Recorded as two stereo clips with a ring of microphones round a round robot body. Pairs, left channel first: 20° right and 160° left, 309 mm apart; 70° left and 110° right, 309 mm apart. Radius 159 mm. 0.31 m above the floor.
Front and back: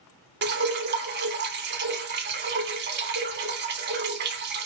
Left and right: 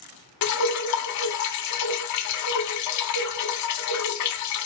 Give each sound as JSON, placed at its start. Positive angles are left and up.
{"t": 0.4, "sound": "dripping", "azimuth_deg": 100, "distance_m": 0.7}